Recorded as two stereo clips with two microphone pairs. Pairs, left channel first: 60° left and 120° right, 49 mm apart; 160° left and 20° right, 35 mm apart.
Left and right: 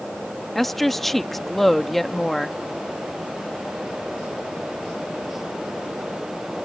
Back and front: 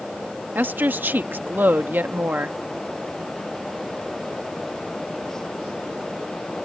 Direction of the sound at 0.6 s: 25° right.